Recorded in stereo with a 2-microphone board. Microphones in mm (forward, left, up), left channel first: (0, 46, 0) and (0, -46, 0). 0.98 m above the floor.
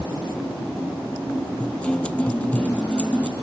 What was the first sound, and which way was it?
A guitar, 15° left (ahead or behind).